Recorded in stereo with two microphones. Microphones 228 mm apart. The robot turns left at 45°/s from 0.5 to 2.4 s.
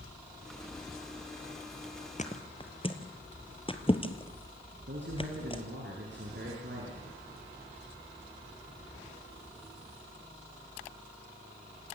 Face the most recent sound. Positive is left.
turn(degrees=-55)  # may be behind; listen again after turning